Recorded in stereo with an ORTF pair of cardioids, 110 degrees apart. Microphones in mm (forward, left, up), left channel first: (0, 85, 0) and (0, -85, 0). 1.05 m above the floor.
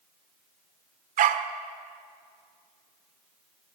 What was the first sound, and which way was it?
A dog barking, 55° right.